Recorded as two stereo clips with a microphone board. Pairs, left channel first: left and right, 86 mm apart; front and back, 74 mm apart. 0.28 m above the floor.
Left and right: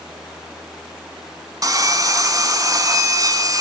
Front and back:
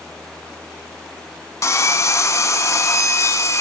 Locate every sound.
1.6 s sawing: 45° right, 0.8 m